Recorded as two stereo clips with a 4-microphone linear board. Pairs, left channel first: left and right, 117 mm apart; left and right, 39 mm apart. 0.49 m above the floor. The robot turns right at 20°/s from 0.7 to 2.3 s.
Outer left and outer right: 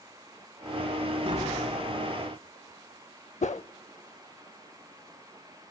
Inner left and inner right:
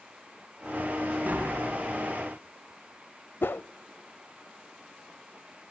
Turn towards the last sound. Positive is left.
turn(degrees=75)  # may be behind; listen again after turning